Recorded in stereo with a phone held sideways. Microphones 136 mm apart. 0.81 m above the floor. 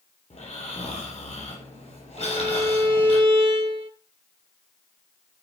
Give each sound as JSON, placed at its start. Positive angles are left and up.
{"t": 0.3, "sound": "snoring", "side_deg": 55, "distance_m": 7.0}
{"t": 2.2, "sound": "a violin", "side_deg": -40, "distance_m": 1.4}